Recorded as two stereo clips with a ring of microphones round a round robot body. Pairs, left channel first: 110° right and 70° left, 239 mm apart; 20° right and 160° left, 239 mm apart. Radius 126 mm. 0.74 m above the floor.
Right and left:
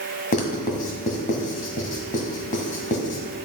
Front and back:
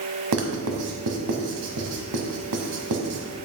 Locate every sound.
0.3 s writing: 170° right, 1.5 m